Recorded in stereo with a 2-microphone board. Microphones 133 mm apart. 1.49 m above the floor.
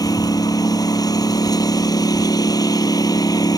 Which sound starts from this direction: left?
A lawn mower, at 0.0 s.